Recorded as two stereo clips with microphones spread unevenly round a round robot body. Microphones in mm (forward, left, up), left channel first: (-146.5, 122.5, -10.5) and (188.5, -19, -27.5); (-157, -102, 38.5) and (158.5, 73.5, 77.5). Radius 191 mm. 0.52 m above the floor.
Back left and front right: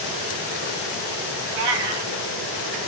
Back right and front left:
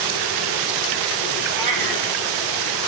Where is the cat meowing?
5° right, 2.5 m.